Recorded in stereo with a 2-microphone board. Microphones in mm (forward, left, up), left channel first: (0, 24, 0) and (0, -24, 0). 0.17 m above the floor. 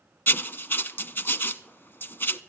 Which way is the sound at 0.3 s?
45° left (ahead or behind).